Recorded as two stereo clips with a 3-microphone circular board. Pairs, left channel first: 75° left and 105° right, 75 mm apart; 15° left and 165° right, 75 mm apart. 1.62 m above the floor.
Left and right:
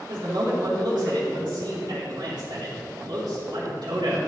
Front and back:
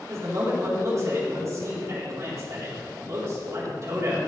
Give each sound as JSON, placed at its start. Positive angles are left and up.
{"t": 0.1, "sound": "a man speaking", "azimuth_deg": -120, "distance_m": 4.0}